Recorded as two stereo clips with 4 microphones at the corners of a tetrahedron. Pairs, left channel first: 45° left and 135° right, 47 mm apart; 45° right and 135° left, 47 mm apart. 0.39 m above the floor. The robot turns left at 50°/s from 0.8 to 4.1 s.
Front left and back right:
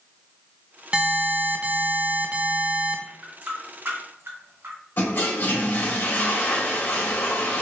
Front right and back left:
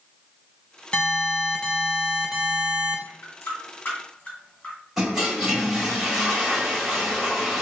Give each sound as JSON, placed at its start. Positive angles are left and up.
{"t": 0.9, "sound": "an alarm", "azimuth_deg": -80, "distance_m": 0.7}
{"t": 3.1, "sound": "a running tap", "azimuth_deg": -60, "distance_m": 2.0}
{"t": 5.0, "sound": "a toilet flushing", "azimuth_deg": 50, "distance_m": 1.5}